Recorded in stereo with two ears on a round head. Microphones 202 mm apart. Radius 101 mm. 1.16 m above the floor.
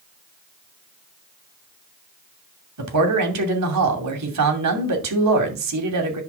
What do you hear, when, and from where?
2.8 s a man speaking: 85° right, 2.5 m